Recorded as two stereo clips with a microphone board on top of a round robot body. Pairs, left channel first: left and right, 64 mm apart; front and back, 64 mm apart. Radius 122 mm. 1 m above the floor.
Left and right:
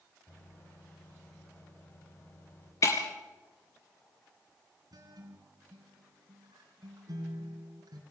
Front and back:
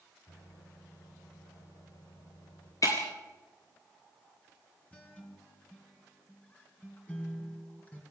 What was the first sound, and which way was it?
A microwave, 35° left.